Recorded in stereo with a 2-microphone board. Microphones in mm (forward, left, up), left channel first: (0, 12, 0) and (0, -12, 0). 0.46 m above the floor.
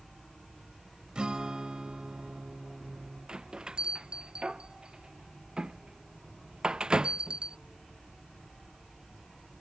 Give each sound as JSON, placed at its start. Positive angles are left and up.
{"t": 1.1, "sound": "a guitar", "side_deg": -40}
{"t": 3.3, "sound": "a bell", "side_deg": -45}